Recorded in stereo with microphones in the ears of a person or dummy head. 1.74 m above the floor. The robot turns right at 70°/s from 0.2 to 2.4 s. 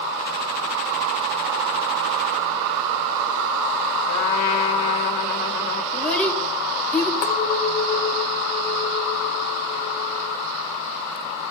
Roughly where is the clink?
Left.